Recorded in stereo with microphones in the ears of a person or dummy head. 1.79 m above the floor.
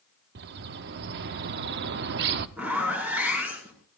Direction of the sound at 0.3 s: 55° right (ahead or behind).